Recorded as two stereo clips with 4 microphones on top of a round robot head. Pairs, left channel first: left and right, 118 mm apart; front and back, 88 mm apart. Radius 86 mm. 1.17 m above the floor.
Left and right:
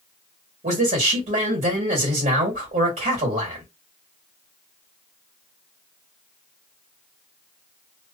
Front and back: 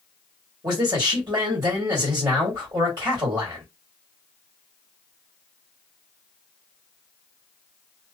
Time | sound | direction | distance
0.6 | a man speaking | 125° right | 1.6 m